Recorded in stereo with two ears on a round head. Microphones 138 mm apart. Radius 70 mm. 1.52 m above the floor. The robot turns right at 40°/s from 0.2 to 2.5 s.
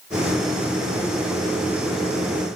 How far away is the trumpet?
No trumpet in this recording.